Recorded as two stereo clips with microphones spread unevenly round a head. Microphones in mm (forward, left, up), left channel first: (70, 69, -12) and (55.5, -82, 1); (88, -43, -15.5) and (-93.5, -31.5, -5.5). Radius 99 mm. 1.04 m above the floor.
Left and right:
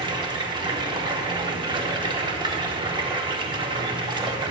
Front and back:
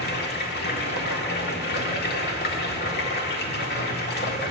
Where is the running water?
35° right, 1.4 m.